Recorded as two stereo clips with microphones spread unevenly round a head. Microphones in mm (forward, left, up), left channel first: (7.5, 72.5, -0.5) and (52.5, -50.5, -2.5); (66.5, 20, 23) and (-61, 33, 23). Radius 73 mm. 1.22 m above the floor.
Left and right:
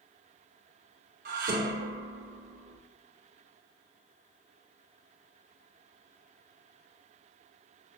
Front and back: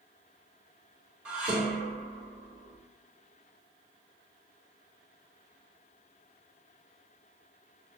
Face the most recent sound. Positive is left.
turn(degrees=-105)